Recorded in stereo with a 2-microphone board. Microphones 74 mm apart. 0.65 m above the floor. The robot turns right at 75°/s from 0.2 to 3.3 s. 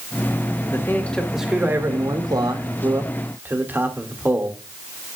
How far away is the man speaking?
About 1.7 m.